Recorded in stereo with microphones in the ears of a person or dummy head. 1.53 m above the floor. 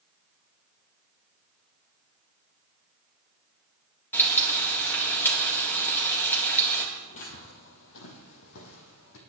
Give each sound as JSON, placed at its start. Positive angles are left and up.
{"t": 4.1, "sound": "frying", "side_deg": 5, "distance_m": 3.0}
{"t": 7.0, "sound": "footsteps", "side_deg": 40, "distance_m": 2.0}